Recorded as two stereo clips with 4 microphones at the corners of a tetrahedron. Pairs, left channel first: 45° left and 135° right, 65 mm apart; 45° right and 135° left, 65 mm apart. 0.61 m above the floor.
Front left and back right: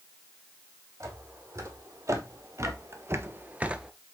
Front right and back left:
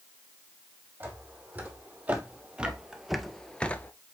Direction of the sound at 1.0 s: 165° right.